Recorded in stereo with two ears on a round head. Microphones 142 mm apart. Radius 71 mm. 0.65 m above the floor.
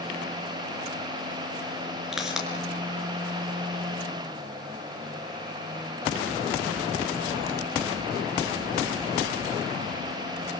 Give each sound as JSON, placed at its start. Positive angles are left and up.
{"t": 2.1, "sound": "a pop", "side_deg": -5, "distance_m": 4.5}